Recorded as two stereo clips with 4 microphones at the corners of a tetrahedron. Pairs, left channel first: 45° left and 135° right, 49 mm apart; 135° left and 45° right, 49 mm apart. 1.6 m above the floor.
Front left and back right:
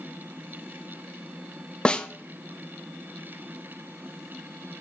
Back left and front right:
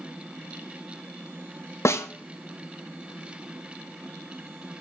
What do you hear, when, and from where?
1.9 s a snare drum: 115° left, 0.5 m